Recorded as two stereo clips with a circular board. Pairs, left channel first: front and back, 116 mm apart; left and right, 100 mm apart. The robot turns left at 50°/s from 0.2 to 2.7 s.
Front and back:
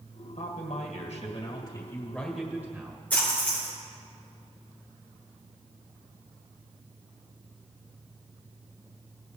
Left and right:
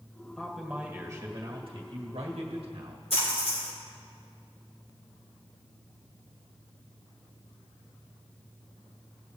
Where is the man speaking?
5° left, 2 m; by 3.0 s 110° right, 2 m.